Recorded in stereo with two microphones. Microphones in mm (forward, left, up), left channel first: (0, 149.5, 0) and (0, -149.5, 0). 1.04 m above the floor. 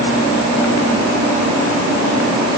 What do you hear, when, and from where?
Only background noise.